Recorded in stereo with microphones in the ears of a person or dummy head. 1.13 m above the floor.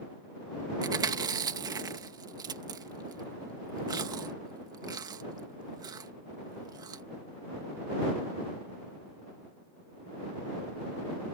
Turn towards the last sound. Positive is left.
turn(degrees=-25)  # may be behind; listen again after turning